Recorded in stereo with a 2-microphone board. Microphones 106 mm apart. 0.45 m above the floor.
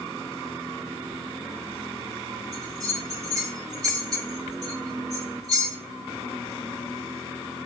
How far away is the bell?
About 1.4 m.